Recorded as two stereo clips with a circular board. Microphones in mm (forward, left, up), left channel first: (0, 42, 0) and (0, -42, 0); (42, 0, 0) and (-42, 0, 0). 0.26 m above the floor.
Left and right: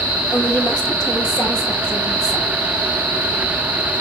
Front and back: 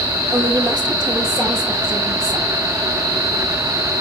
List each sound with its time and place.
0.3 s a woman speaking: 135° left, 5.5 m